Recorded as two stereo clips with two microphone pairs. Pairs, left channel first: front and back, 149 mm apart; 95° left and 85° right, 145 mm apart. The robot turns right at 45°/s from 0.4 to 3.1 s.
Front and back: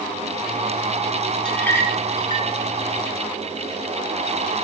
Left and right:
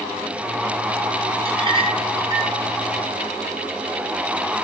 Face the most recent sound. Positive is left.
turn(degrees=0)